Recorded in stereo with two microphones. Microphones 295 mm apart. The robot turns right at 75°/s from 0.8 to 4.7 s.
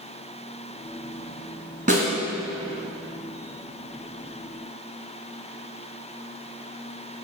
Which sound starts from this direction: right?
A snare drum, at 1.9 s.